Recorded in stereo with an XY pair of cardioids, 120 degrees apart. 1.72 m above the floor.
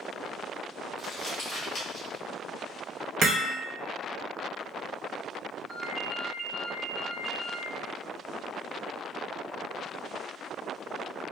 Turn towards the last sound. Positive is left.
turn(degrees=-15)